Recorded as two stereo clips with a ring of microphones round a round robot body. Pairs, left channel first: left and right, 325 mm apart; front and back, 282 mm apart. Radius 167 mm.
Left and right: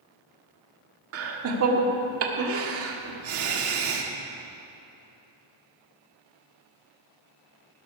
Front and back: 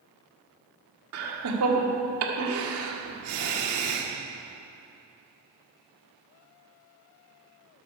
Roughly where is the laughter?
Behind right.